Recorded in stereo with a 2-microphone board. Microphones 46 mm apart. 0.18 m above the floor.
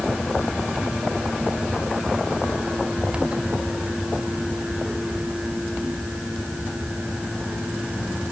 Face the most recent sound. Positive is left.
No sound to turn to.